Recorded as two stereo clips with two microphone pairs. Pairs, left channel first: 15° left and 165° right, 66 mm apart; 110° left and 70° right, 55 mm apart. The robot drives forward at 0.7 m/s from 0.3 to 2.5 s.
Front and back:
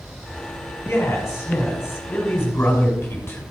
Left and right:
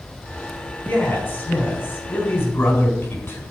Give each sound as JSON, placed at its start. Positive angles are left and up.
{"t": 0.8, "sound": "a man speaking", "azimuth_deg": 60, "distance_m": 6.0}